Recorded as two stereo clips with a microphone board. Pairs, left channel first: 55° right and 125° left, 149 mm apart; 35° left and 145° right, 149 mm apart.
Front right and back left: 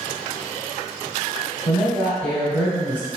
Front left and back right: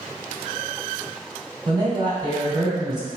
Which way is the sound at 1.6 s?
130° right.